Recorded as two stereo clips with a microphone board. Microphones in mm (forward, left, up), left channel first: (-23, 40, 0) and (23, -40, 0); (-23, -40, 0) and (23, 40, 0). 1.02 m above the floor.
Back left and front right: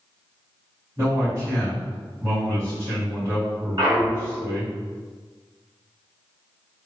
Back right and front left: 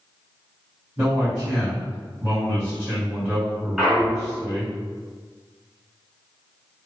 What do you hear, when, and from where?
1.0 s a man speaking: 5° left, 2.0 m
3.8 s a clunk: 20° right, 1.6 m